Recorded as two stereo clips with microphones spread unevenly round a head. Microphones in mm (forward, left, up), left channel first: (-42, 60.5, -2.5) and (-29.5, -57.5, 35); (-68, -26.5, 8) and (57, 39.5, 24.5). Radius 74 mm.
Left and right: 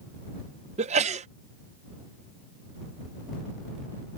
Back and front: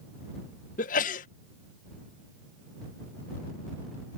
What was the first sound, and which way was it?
A sneeze, 110° right.